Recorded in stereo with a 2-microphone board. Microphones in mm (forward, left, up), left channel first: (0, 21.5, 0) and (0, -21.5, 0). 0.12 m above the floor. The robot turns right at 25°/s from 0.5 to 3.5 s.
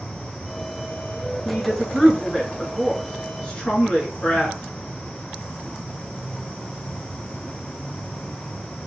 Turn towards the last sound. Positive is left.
turn(degrees=55)